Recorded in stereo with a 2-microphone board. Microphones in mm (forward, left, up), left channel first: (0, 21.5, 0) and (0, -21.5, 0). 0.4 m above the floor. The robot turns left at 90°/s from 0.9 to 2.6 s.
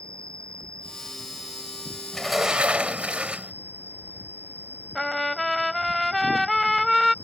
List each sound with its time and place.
0.0 s an insect: 25° left; by 7.2 s 125° right
2.1 s a sliding door: 15° left; by 3.5 s 30° right
5.0 s a trumpet: 5° left (ahead or behind)